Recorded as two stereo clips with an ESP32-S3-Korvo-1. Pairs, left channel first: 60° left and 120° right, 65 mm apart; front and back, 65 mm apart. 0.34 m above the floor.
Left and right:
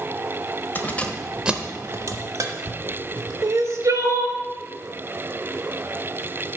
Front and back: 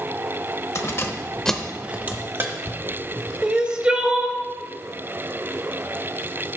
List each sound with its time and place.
0.8 s keys jangling: 15° left, 0.9 m; by 3.3 s 140° right, 1.9 m
3.4 s crying: 110° right, 0.8 m